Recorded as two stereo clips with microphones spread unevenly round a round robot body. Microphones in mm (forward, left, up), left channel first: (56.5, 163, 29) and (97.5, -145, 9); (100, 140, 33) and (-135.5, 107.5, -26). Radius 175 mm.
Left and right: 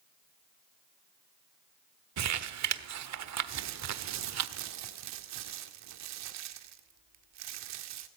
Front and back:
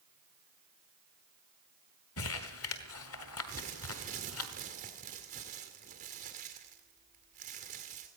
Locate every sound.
2.2 s crumpling: 45° right, 1.2 m
3.5 s crumpling: 115° right, 1.9 m